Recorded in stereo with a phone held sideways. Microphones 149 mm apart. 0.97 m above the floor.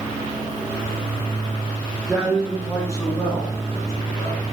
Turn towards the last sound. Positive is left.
turn(degrees=20)  # may be behind; listen again after turning